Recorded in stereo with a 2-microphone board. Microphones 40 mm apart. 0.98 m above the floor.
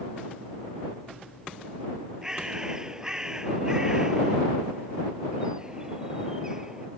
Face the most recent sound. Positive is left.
turn(degrees=-15)  # may be behind; listen again after turning